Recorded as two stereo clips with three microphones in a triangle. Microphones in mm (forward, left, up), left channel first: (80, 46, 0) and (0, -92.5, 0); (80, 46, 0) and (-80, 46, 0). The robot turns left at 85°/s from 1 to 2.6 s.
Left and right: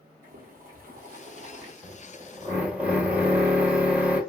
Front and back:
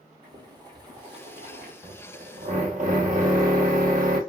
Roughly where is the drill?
Behind right.